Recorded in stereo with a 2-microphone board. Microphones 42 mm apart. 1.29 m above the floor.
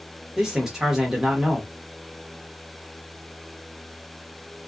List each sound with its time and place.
0.4 s a man speaking: 10° right (ahead or behind), 1.2 m